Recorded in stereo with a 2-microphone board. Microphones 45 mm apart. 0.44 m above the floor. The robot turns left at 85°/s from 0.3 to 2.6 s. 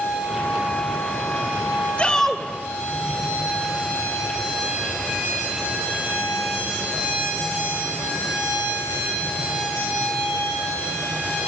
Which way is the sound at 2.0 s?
35° left.